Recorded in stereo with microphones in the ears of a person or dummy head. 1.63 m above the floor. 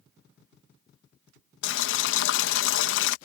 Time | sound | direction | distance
1.6 | boiling | 75° left (ahead or behind) | ?